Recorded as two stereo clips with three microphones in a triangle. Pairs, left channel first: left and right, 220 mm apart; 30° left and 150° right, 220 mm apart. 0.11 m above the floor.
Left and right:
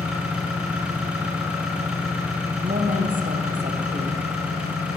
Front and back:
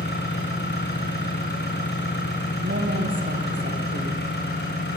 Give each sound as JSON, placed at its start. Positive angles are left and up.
{"t": 0.0, "sound": "an engine running", "azimuth_deg": -5, "distance_m": 5.5}
{"t": 2.6, "sound": "a woman speaking", "azimuth_deg": -135, "distance_m": 4.0}